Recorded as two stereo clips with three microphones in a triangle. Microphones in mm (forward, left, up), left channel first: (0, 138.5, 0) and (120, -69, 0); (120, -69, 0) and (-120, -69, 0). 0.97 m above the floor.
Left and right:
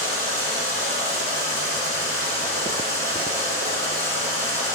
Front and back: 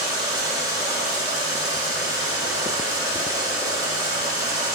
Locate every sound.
0.0 s running water: 105° right, 4 m